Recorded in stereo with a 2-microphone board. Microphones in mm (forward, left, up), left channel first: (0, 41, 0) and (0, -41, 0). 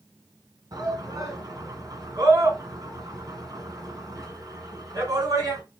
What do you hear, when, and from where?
0.7 s a shout: 50° right (ahead or behind), 2 m